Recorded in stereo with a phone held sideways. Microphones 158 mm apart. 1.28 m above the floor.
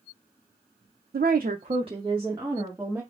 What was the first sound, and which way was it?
A woman speaking, 80° right.